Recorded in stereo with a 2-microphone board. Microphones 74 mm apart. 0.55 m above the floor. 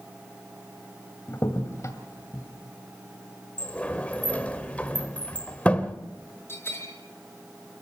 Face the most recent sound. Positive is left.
turn(degrees=30)  # may be behind; listen again after turning